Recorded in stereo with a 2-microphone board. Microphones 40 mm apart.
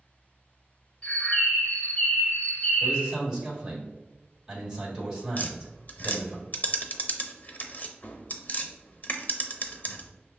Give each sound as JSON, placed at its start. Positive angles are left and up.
{"t": 1.0, "sound": "a bird", "side_deg": 30, "distance_m": 0.7}
{"t": 2.8, "sound": "a man speaking", "side_deg": -15, "distance_m": 1.5}
{"t": 5.4, "sound": "tapping", "side_deg": 40, "distance_m": 0.5}